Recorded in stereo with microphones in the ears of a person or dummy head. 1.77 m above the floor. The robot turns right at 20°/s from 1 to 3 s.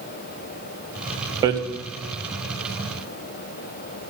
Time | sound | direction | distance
1.4 | hammering | 25° right (ahead or behind) | 0.7 m